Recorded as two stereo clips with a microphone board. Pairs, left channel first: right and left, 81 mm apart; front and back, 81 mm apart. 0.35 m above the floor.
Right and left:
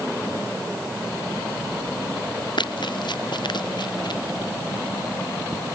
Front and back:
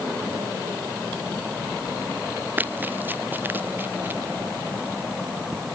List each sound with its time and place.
2.6 s running footsteps: 110° right; by 4.2 s 115° right